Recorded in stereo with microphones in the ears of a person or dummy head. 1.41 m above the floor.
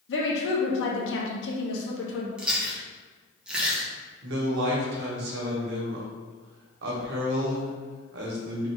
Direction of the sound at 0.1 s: 75° left (ahead or behind).